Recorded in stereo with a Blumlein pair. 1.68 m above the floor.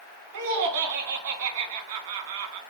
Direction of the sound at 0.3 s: 55° right.